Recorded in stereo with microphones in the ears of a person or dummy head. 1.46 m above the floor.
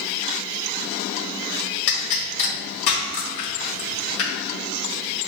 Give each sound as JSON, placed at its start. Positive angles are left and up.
{"t": 1.9, "sound": "a pop", "side_deg": 70, "distance_m": 1.3}